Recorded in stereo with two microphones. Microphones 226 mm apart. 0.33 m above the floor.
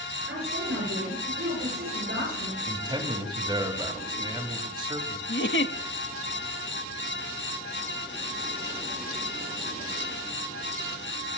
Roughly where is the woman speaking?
Right.